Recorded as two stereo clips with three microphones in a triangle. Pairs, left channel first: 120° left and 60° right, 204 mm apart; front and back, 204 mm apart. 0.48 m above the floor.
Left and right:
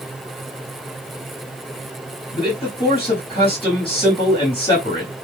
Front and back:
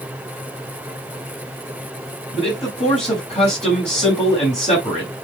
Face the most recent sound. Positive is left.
turn(degrees=55)